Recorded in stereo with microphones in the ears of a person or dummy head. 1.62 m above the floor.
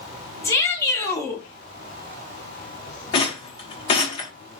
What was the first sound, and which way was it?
A shout, 15° left (ahead or behind).